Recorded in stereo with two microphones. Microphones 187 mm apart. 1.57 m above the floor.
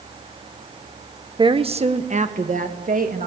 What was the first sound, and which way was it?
A woman speaking, 25° right (ahead or behind).